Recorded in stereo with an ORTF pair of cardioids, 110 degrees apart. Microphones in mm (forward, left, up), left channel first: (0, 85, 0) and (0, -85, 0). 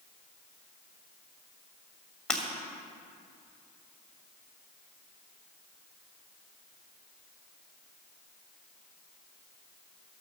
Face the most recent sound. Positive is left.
turn(degrees=5)